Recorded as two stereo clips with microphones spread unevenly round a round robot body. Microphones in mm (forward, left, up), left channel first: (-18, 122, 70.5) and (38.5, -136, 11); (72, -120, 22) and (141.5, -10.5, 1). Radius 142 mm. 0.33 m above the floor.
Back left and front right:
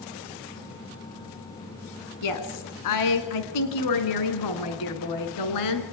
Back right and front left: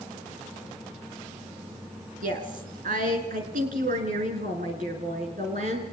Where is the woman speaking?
85° left, 3.5 m; by 5.8 s 115° left, 4 m.